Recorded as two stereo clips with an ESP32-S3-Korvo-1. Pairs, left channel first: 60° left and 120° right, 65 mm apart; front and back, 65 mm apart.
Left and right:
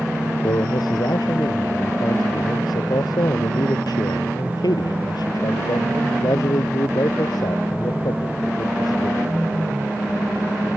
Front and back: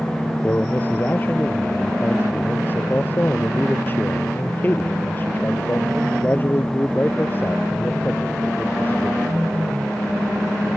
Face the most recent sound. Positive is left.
turn(degrees=60)